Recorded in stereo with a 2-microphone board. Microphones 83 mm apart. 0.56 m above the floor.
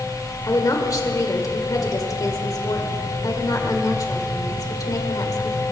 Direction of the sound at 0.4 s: 45° left (ahead or behind).